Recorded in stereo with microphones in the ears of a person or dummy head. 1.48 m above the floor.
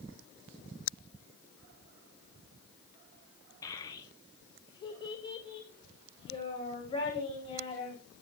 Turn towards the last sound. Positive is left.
turn(degrees=35)  # may be behind; listen again after turning